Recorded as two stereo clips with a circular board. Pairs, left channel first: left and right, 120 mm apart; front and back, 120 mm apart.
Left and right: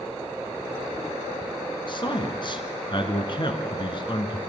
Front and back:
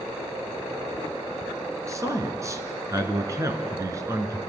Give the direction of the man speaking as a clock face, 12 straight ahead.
8 o'clock.